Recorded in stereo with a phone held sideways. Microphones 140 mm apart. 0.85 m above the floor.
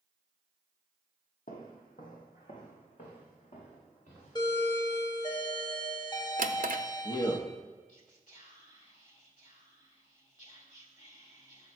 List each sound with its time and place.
1.5 s footsteps: 70° left (ahead or behind), 2 m; by 4.4 s 60° left (ahead or behind), 5.5 m
4.3 s a doorbell: 30° left (ahead or behind), 1.0 m
6.4 s a drawer: 65° right (ahead or behind), 0.6 m
7.9 s whispering: 60° left (ahead or behind), 2.5 m